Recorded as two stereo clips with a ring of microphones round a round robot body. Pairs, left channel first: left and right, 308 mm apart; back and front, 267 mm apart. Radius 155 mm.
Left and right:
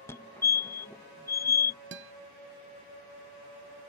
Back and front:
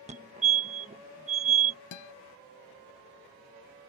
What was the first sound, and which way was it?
A fire alarm, 20° left.